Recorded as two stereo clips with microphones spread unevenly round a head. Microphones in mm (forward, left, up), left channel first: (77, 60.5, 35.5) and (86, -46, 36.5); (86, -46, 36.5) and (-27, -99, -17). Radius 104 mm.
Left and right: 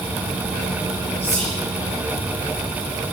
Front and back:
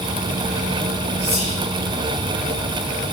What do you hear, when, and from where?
1.2 s whispering: 145° left, 2.5 m